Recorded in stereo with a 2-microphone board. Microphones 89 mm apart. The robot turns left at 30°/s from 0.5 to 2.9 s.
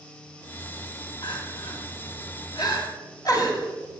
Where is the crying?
60° left (ahead or behind), 1.9 m; by 3.7 s 45° left (ahead or behind), 1.9 m.